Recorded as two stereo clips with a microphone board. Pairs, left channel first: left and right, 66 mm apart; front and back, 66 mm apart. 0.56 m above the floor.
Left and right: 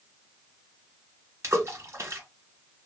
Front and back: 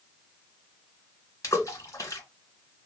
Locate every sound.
1.4 s a splash: 40° right, 0.9 m